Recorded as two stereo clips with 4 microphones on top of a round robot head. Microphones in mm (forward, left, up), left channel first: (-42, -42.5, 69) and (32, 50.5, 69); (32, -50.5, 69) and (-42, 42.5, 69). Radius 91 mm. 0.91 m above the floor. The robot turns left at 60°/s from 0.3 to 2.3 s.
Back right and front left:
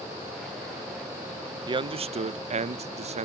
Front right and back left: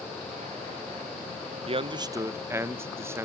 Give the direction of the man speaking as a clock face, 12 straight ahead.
9 o'clock.